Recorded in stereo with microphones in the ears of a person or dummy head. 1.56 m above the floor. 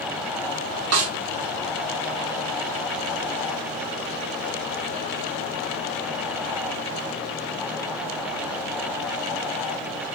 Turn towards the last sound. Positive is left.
turn(degrees=-75)  # may be behind; listen again after turning